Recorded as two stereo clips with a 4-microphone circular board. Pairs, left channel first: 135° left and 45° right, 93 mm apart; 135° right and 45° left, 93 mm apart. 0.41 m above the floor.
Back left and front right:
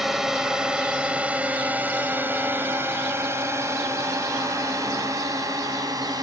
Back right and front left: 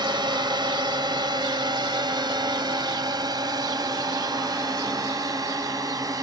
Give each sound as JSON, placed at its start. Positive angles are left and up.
{"t": 0.0, "sound": "a drone", "azimuth_deg": 40}